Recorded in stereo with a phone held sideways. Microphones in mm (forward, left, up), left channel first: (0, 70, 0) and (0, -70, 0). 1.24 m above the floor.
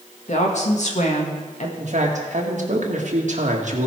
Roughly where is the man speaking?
Right.